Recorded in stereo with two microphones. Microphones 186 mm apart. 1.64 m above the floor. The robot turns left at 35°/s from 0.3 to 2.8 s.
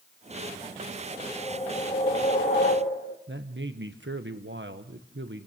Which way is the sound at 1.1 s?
170° left.